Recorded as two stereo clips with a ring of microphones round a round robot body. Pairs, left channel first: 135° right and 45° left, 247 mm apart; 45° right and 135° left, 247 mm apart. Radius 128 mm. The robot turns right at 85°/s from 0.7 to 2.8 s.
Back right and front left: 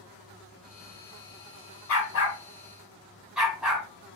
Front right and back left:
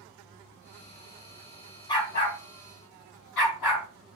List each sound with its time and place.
1.9 s a dog barking: 120° right, 2 m; by 3.9 s 40° right, 2 m